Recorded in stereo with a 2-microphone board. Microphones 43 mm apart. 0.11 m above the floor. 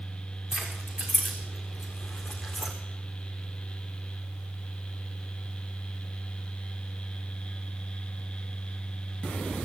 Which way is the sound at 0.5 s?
5° right (ahead or behind).